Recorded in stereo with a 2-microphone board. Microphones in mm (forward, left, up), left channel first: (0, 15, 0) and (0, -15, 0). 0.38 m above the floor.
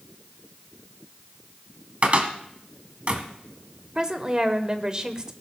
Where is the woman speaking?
25° right (ahead or behind), 1.0 m.